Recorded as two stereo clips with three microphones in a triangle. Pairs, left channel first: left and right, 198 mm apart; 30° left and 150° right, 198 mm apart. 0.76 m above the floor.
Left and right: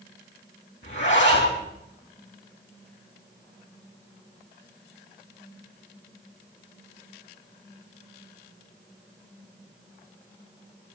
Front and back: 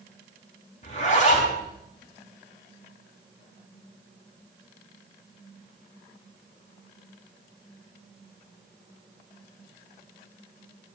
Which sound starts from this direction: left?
A zipper, at 0.8 s.